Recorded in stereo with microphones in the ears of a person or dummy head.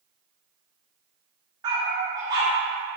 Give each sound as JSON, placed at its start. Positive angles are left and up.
{"t": 1.6, "sound": "a dog barking", "side_deg": -25, "distance_m": 1.3}